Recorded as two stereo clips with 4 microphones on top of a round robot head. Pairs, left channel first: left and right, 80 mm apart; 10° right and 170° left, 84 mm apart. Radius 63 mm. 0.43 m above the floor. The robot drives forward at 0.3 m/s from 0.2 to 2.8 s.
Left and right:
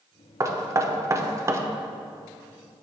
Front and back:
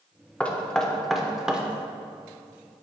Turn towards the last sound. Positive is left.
turn(degrees=-140)